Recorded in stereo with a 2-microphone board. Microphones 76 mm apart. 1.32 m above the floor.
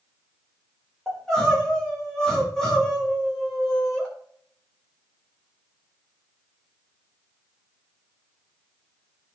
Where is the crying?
5° left (ahead or behind), 5 m.